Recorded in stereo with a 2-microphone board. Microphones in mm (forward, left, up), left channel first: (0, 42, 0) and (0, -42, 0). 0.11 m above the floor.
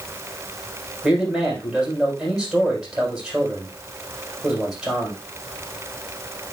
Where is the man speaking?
5° right (ahead or behind), 6 m.